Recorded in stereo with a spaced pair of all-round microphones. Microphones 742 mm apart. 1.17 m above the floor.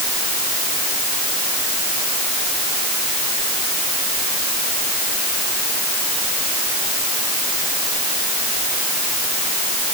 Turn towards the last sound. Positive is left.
No sound to turn to.